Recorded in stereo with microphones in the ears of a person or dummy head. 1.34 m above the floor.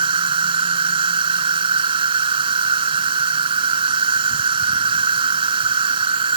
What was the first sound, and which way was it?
An insect, 35° right (ahead or behind).